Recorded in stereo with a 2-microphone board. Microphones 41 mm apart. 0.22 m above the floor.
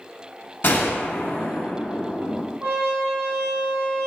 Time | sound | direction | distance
0.6 | a gunshot | 55° left (ahead or behind) | 0.6 m
2.6 | a trumpet | 50° right (ahead or behind) | 0.8 m